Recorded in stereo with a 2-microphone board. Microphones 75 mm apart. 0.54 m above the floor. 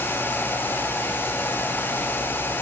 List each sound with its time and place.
Only background noise.